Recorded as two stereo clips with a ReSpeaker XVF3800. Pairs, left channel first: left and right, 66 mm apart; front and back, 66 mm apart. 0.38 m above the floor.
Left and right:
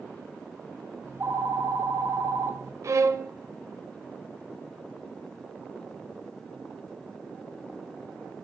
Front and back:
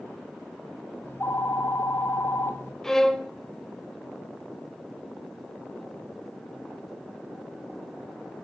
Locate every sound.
1.0 s a phone ringing: 50° right, 1.7 m
2.8 s a violin: 80° right, 0.9 m